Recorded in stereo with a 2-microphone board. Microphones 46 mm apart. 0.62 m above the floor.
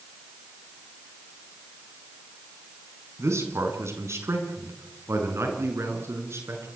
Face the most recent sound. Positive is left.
turn(degrees=-80)